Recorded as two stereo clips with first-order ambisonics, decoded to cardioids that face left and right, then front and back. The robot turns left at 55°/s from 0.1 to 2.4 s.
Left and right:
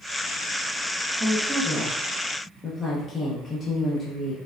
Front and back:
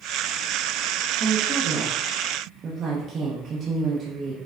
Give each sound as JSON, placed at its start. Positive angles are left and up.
{"t": 1.2, "sound": "a woman speaking", "azimuth_deg": -150, "distance_m": 0.7}